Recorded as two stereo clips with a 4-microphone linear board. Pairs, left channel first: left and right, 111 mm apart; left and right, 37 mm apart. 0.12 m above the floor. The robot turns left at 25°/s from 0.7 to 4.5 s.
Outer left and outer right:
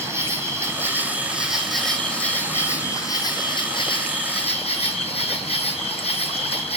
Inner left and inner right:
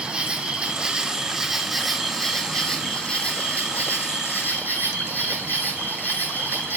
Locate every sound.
0.0 s an insect: 155° right, 1.5 m; by 6.8 s 110° left, 1.5 m